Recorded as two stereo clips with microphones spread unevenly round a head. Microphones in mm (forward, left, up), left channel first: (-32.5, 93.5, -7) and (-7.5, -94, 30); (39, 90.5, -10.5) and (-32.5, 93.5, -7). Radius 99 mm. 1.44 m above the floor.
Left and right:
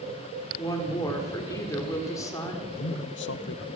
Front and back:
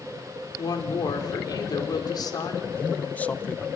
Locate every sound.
0.6 s a woman speaking: 20° left, 4.5 m
2.8 s a man speaking: 70° left, 1.2 m